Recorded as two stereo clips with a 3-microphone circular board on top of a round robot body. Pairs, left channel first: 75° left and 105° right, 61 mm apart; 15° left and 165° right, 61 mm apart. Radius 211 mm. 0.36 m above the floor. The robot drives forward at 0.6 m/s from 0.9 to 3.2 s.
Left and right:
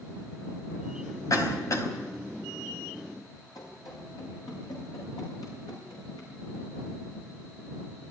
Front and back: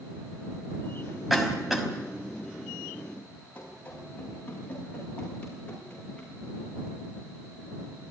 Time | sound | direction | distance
1.3 | a cough | 105° left | 5 m
3.5 | running footsteps | 80° left | 10 m